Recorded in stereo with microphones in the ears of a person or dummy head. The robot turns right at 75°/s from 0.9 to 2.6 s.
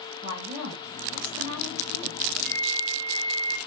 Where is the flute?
65° right (ahead or behind), 1.7 m; by 3.6 s 50° right (ahead or behind), 1.7 m.